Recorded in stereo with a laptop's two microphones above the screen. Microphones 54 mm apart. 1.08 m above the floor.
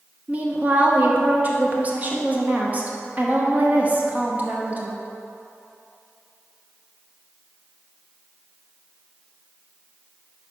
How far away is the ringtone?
I don't hear a ringtone.